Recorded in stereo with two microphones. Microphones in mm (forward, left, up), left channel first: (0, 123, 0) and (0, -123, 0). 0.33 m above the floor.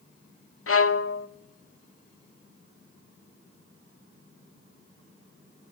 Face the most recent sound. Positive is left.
turn(degrees=65)  # may be behind; listen again after turning